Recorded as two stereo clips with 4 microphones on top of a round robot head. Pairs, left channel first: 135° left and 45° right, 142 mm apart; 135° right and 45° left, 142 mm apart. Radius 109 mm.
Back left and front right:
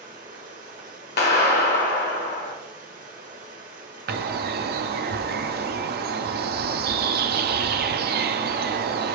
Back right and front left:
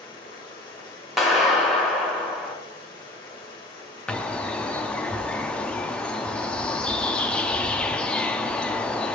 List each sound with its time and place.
0.0 s running water: 75° right, 1.0 m
1.2 s a clap: 135° left, 1.3 m
4.1 s a bird: 50° right, 0.5 m